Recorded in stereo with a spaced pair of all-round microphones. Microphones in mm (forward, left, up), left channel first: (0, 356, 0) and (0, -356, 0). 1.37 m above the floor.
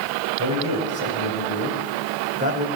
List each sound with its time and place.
0.4 s a man speaking: 25° right (ahead or behind), 7 m; by 2.7 s 10° right (ahead or behind), 6 m